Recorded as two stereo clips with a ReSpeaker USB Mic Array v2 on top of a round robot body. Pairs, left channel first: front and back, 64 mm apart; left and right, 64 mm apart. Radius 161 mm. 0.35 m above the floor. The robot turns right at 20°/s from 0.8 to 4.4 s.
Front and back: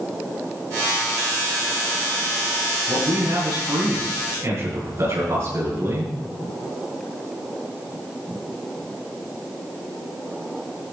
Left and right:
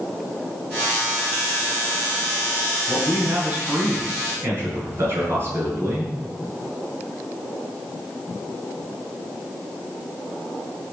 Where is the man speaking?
165° right, 8 m; by 6.1 s 135° right, 8 m.